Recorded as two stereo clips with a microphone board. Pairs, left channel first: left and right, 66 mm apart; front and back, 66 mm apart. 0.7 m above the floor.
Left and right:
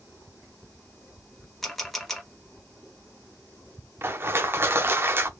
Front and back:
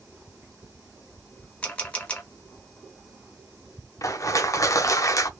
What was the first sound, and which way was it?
A camera shutter, 10° left.